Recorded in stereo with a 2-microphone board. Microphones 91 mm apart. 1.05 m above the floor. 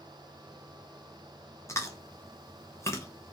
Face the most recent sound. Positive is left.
turn(degrees=30)  # may be behind; listen again after turning